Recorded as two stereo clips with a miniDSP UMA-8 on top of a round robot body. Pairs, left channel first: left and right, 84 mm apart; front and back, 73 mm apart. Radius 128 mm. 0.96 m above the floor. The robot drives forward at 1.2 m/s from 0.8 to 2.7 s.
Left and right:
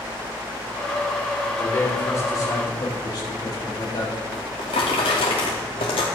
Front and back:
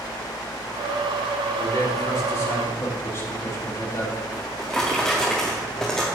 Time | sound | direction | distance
1.6 | a man speaking | 30° left | 3 m
4.3 | a drawer | 80° left | 0.6 m